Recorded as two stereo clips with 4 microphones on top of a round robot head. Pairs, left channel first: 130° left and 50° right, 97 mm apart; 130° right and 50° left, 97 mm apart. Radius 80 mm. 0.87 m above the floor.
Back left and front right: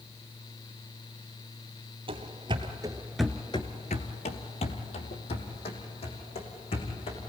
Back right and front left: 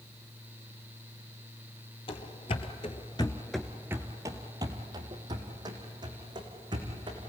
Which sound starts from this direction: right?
Running footsteps, at 2.1 s.